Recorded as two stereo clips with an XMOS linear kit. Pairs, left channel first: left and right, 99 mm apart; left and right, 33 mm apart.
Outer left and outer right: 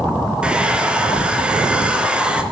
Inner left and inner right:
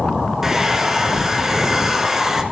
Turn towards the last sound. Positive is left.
turn(degrees=-10)  # may be behind; listen again after turning